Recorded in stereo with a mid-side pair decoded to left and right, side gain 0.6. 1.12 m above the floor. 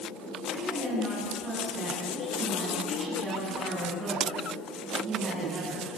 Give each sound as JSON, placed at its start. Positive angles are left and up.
{"t": 0.5, "sound": "a woman speaking", "azimuth_deg": -35, "distance_m": 8.0}